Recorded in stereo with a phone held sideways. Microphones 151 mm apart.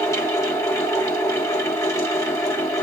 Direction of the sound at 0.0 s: 20° left (ahead or behind).